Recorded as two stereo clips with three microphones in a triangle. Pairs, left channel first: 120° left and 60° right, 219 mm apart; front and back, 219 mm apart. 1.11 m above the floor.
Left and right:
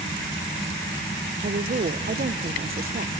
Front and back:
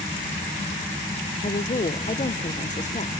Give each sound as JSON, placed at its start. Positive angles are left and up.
{"t": 1.4, "sound": "a woman speaking", "azimuth_deg": -40, "distance_m": 0.7}